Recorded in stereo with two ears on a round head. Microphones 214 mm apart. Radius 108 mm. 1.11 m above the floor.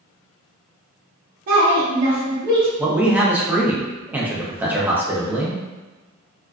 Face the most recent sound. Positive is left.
turn(degrees=-10)  # may be behind; listen again after turning